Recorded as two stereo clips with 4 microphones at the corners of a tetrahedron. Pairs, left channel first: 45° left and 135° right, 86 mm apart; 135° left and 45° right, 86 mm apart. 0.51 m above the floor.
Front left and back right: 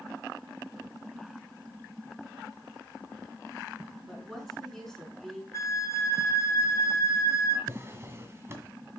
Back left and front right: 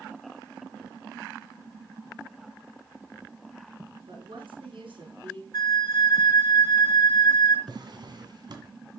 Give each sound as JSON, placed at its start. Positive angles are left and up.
{"t": 4.1, "sound": "a woman speaking", "azimuth_deg": -40, "distance_m": 5.5}
{"t": 5.5, "sound": "a flute", "azimuth_deg": 95, "distance_m": 1.3}
{"t": 7.7, "sound": "a drawer", "azimuth_deg": -75, "distance_m": 1.9}